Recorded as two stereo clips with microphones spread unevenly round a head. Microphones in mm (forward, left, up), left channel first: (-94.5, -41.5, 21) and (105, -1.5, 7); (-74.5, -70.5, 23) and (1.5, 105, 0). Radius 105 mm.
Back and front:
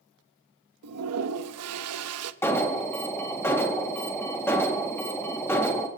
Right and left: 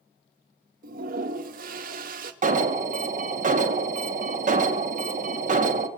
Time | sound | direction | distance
0.8 | a toilet flushing | 15° left | 0.9 m
2.4 | an alarm | 110° left | 1.9 m